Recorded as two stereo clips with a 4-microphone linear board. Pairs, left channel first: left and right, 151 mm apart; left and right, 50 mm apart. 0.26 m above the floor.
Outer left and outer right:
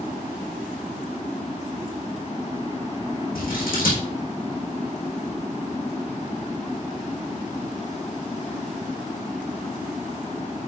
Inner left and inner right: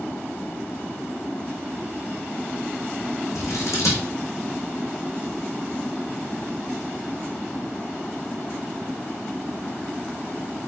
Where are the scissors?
75° left (ahead or behind), 2.5 m.